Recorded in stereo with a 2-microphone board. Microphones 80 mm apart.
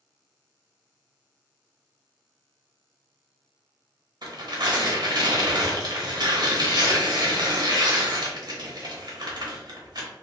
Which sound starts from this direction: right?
Tearing paper, at 4.2 s.